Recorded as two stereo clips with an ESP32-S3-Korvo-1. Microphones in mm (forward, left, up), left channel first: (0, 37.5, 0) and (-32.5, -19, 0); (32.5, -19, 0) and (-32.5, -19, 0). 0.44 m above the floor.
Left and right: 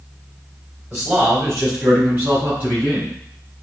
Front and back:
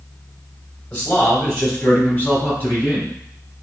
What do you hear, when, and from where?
0.9 s a man speaking: 70° right, 2.5 m; by 3.1 s 65° right, 5 m